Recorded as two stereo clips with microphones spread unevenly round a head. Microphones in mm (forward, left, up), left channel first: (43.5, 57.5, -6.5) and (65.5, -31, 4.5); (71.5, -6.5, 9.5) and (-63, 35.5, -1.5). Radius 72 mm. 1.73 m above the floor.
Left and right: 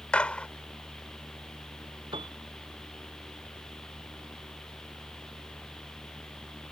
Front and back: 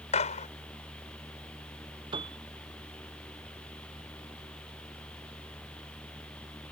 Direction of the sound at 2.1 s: 135° right.